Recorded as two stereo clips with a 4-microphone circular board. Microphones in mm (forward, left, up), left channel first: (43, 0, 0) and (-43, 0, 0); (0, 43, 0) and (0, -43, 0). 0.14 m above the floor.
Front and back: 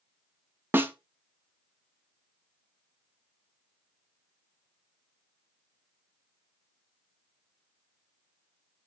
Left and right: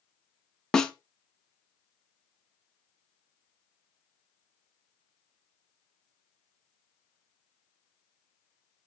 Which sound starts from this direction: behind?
A snare drum, at 0.7 s.